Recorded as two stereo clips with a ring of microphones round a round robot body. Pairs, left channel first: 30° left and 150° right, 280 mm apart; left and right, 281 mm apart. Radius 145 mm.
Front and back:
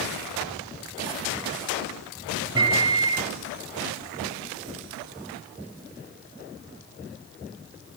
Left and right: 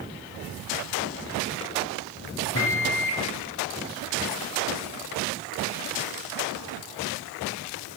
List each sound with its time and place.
2.5 s a microwave: 135° left, 1.5 m